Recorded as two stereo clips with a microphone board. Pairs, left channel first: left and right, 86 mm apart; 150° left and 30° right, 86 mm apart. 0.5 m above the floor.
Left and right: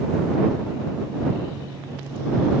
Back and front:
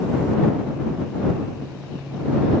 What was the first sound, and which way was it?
Only background noise.